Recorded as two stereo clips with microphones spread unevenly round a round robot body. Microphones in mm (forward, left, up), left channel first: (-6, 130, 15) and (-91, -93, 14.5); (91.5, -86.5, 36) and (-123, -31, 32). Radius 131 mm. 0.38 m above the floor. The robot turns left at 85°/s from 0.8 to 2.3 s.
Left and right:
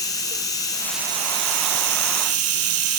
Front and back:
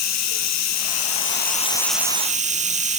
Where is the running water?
10° right, 3 m; by 3.0 s 135° right, 3 m.